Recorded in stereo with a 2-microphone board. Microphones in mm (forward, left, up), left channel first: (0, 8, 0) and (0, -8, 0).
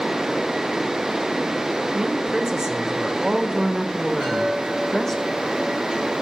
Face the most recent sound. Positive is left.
turn(degrees=70)  # may be behind; listen again after turning